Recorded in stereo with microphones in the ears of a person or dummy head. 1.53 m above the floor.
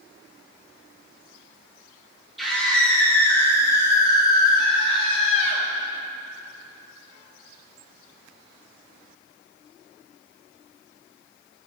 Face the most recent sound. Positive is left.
turn(degrees=45)  # may be behind; listen again after turning